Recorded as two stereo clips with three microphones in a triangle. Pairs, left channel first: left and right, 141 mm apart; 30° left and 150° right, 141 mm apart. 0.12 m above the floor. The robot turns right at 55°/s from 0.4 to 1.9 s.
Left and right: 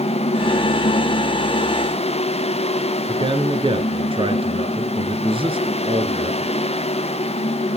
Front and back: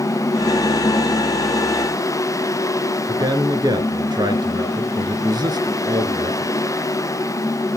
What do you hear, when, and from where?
3.1 s a man speaking: 105° right, 1.6 m